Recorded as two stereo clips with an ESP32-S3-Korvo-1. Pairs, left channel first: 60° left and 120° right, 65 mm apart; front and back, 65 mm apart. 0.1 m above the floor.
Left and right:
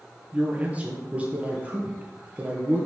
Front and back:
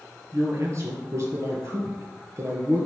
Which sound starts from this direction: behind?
A man speaking, at 0.3 s.